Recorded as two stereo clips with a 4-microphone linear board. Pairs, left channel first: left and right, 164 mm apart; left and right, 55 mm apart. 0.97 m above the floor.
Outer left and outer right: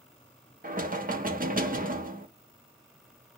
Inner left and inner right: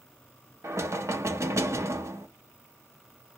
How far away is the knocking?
About 0.7 m.